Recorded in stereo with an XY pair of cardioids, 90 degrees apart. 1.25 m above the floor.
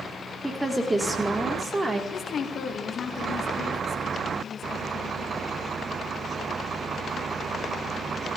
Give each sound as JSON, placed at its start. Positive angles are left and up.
{"t": 0.4, "sound": "a woman speaking", "azimuth_deg": -5, "distance_m": 1.4}
{"t": 2.1, "sound": "a woman speaking", "azimuth_deg": 60, "distance_m": 1.3}